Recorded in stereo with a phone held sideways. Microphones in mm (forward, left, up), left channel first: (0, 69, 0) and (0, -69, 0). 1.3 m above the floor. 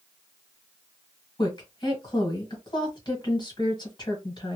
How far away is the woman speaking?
About 1.3 m.